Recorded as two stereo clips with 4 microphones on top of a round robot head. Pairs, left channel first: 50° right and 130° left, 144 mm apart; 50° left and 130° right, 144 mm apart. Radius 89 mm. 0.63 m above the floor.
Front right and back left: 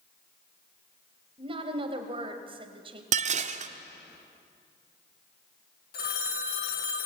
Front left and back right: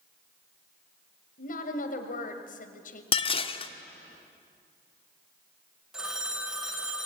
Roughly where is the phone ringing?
Ahead right.